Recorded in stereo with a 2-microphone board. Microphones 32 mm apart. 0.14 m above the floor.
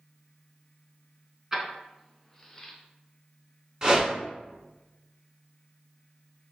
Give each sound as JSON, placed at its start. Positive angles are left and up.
{"t": 1.5, "sound": "keys jangling", "side_deg": -15, "distance_m": 0.8}
{"t": 3.8, "sound": "a whoosh", "side_deg": -20, "distance_m": 1.0}